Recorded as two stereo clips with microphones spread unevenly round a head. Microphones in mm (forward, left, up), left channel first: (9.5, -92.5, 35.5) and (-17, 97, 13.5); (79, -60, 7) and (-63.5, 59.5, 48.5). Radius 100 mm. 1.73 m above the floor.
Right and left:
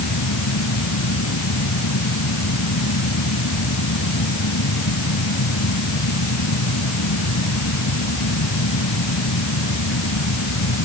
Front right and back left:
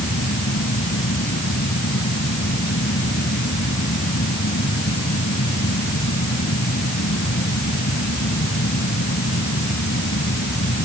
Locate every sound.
0.0 s a fan: 85° right